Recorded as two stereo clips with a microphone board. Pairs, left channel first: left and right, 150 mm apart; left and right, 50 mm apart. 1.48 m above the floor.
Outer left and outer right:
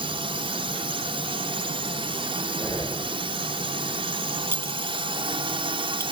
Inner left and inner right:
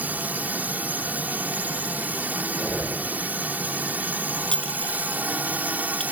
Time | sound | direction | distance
0.0 | a drone | 35° right (ahead or behind) | ?
2.6 | breathing | 20° left (ahead or behind) | ?
4.5 | a clink | 15° left (ahead or behind) | ?